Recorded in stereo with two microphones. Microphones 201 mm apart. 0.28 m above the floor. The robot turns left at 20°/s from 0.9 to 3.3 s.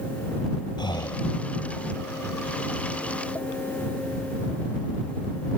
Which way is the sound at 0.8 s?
20° left (ahead or behind).